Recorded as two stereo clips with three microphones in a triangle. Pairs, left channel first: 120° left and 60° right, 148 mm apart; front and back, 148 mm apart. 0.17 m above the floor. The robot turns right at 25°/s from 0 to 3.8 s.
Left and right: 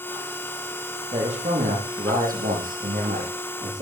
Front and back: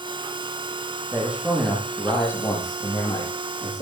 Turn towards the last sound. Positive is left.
turn(degrees=-35)